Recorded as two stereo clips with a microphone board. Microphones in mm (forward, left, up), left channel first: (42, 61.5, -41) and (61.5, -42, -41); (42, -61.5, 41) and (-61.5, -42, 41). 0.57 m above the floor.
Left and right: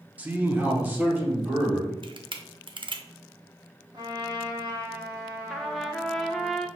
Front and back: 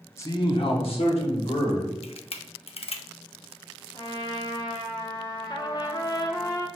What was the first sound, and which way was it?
A man speaking, 25° right.